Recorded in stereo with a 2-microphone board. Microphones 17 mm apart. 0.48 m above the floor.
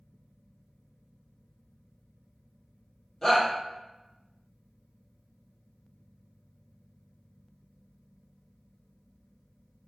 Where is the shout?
20° left (ahead or behind), 1.5 m.